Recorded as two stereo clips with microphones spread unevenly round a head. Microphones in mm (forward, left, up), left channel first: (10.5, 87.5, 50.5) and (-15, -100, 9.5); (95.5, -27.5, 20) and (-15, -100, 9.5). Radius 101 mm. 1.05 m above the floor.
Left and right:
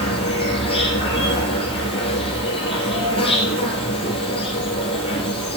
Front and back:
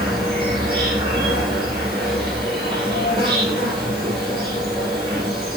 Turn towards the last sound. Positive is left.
turn(degrees=145)